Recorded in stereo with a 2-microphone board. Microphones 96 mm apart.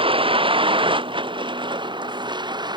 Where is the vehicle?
70° right (ahead or behind); by 2.8 s 50° right (ahead or behind).